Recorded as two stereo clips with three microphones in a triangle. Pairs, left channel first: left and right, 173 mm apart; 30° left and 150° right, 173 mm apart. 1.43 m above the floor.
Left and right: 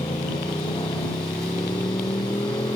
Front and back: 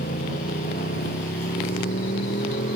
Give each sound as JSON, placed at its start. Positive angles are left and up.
{"t": 0.0, "sound": "a motorcycle", "azimuth_deg": 25}